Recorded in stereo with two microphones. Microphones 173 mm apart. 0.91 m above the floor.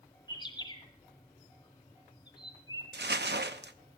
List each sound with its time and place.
0.3 s a bird: 25° left (ahead or behind), 2.5 m
2.9 s crumpling: 80° right, 0.6 m